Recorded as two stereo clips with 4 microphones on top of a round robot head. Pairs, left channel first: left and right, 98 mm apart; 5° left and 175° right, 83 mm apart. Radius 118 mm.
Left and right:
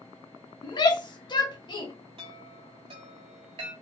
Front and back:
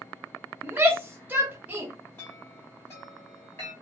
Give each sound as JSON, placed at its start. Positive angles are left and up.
{"t": 0.6, "sound": "a shout", "azimuth_deg": 120, "distance_m": 0.8}
{"t": 2.2, "sound": "a chime", "azimuth_deg": -70, "distance_m": 0.7}